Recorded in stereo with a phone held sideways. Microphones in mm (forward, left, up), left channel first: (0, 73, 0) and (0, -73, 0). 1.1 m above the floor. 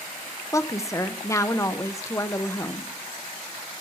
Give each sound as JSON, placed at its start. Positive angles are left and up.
{"t": 0.5, "sound": "a woman speaking", "side_deg": 20, "distance_m": 0.6}